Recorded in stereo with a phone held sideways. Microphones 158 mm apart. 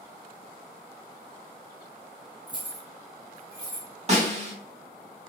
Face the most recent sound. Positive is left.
turn(degrees=-40)  # may be behind; listen again after turning